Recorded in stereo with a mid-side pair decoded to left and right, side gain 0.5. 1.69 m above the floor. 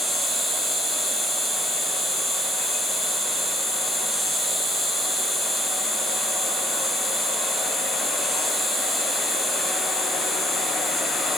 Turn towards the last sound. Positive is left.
turn(degrees=5)